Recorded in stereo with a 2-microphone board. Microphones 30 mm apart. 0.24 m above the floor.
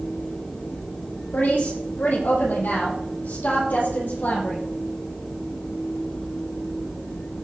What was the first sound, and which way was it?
A woman speaking, 75° left (ahead or behind).